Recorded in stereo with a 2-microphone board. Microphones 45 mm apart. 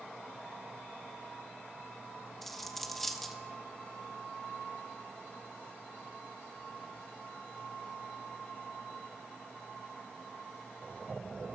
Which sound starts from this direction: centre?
A dropped coin, at 2.4 s.